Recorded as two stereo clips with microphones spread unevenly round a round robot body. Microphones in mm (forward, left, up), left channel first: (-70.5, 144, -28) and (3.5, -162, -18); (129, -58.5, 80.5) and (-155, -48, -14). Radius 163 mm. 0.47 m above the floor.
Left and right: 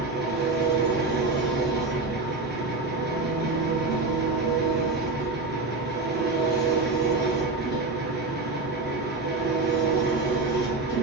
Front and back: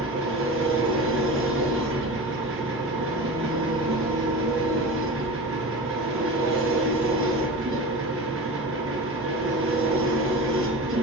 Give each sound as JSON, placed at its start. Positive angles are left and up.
{"t": 0.0, "sound": "an engine running", "azimuth_deg": -135, "distance_m": 1.8}